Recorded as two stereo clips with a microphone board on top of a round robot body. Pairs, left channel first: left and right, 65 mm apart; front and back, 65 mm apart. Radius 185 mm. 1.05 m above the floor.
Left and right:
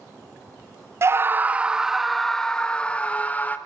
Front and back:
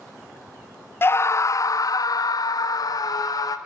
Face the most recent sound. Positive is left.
turn(degrees=25)